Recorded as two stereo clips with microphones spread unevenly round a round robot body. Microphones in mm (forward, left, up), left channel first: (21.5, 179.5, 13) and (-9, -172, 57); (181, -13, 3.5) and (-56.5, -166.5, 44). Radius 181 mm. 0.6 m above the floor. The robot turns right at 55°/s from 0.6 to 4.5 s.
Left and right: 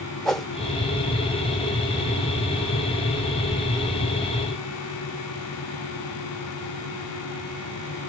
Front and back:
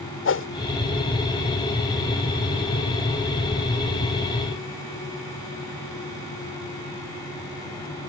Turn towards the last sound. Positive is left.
turn(degrees=-145)